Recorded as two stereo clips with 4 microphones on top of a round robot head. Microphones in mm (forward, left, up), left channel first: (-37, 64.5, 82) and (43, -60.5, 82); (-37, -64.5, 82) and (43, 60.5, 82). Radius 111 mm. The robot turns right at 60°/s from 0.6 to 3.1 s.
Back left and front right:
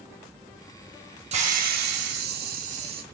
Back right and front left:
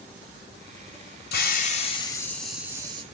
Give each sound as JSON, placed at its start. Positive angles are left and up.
{"t": 1.3, "sound": "a hiss", "azimuth_deg": -105, "distance_m": 1.3}